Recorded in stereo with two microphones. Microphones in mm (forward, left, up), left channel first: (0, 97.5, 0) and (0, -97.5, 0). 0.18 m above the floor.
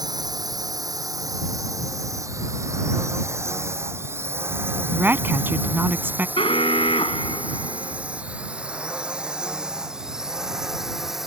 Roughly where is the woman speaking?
Centre.